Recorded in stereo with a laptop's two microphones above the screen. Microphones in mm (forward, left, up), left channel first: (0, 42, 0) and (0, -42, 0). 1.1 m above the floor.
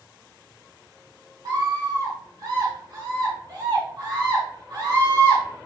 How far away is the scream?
About 2 m.